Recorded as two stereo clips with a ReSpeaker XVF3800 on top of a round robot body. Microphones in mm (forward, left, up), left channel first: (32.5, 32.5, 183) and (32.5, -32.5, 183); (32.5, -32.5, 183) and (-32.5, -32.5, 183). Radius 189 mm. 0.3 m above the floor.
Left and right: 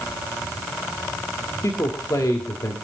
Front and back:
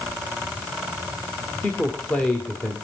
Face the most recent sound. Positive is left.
turn(degrees=65)